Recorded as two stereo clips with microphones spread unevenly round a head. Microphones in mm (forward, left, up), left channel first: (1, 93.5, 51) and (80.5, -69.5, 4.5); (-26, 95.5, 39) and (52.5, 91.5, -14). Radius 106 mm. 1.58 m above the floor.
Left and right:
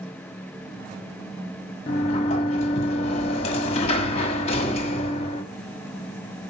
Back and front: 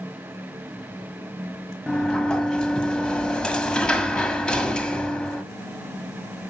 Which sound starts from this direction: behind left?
A sliding door, at 1.9 s.